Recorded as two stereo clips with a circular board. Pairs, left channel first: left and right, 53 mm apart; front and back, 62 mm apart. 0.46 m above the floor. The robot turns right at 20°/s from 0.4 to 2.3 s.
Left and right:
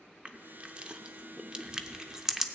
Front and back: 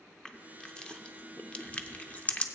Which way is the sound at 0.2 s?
65° right.